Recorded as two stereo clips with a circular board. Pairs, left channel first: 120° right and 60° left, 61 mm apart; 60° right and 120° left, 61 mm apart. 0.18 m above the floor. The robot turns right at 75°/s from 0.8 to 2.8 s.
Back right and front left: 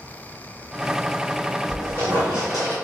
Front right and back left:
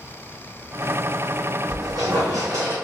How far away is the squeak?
About 2.0 m.